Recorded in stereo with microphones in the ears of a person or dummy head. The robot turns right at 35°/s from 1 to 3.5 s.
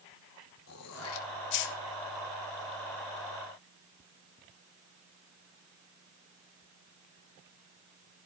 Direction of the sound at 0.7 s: 85° left.